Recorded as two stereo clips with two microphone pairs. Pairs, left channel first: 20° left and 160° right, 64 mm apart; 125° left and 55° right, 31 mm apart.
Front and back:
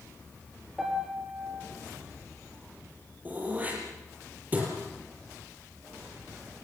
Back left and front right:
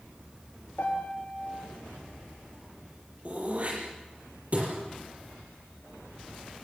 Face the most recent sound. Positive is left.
turn(degrees=-95)